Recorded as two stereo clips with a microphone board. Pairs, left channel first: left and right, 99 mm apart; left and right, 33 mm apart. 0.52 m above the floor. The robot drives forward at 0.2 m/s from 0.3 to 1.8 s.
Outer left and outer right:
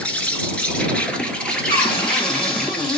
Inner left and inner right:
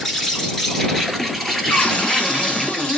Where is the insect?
10° left (ahead or behind), 0.9 m.